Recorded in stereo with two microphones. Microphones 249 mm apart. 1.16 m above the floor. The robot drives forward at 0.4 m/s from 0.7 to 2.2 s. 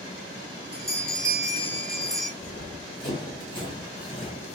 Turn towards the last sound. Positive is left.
turn(degrees=20)  # may be behind; listen again after turning